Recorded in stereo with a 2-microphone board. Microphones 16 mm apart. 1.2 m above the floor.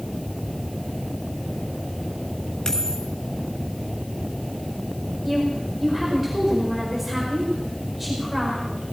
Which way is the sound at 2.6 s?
40° left (ahead or behind).